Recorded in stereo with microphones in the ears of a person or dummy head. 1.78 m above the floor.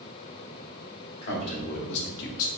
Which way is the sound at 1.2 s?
50° left (ahead or behind).